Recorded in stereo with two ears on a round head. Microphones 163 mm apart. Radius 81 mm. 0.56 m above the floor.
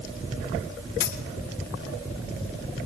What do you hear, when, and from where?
1.0 s a dropped coin: 60° left (ahead or behind), 2.5 m